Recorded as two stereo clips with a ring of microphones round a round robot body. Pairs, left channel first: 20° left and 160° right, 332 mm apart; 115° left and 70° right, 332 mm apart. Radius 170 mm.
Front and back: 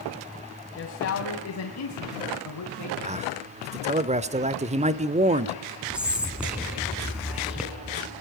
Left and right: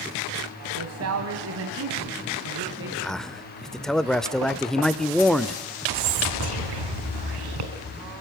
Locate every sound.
0.8 s a man speaking: 30° right, 2.0 m; by 2.9 s 15° right, 3 m
3.0 s a man speaking: 160° right, 0.9 m
5.9 s whispering: 70° right, 3 m